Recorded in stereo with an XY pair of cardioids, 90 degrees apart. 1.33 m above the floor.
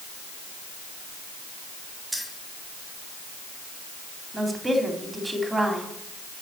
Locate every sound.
2.1 s keys jangling: 5° right, 4.5 m
4.3 s a woman speaking: 15° right, 3.5 m